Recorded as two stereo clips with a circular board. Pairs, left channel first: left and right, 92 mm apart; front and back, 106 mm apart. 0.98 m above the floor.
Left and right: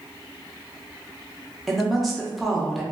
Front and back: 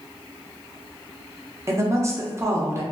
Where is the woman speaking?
Straight behind, 0.5 m.